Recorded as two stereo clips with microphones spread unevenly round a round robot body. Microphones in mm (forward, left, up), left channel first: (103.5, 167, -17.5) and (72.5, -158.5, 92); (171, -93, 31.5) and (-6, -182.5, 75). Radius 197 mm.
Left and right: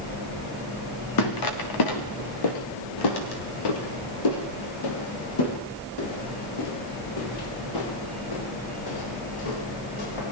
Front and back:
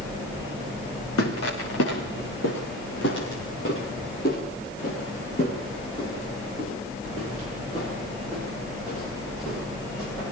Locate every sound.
1.2 s footsteps: 55° left, 4 m; by 10.3 s 110° left, 12.5 m